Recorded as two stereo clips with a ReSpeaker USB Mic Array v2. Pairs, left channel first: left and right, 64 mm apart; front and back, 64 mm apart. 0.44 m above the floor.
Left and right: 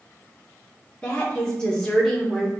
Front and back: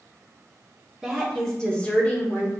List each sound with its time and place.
1.0 s a woman speaking: 110° left, 1.0 m; by 2.5 s straight ahead, 1.2 m